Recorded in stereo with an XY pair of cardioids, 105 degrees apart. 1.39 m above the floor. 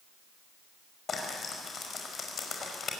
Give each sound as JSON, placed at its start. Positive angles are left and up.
{"t": 1.1, "sound": "frying", "azimuth_deg": 45, "distance_m": 5.0}